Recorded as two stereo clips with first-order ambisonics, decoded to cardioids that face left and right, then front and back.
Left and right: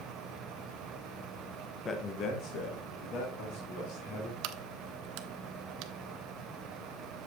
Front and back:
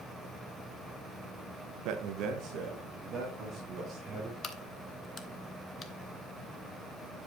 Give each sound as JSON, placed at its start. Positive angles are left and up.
{"t": 1.9, "sound": "a man speaking", "azimuth_deg": 160, "distance_m": 0.9}
{"t": 4.4, "sound": "a crack", "azimuth_deg": -65, "distance_m": 0.8}